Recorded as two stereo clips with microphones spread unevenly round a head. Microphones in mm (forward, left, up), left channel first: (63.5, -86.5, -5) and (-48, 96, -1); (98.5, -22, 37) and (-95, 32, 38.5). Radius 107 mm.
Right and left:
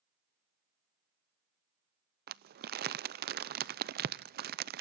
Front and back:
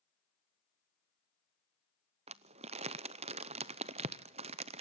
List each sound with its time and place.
2.3 s crumpling: 115° left, 0.6 m